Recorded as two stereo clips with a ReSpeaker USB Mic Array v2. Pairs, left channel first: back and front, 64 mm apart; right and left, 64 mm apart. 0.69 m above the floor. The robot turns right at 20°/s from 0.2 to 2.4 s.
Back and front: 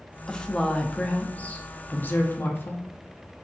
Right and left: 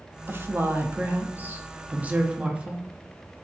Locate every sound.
0.3 s a woman speaking: 105° left, 0.6 m; by 2.8 s 150° left, 0.6 m